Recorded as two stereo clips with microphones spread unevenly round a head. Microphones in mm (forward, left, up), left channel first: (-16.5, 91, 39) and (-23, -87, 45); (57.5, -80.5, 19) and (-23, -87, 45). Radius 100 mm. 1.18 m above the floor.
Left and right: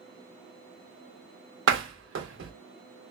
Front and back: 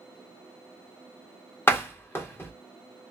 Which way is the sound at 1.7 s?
65° right.